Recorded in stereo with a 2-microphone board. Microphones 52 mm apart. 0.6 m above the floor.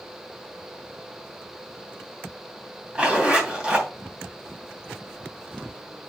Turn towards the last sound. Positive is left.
turn(degrees=-20)  # may be behind; listen again after turning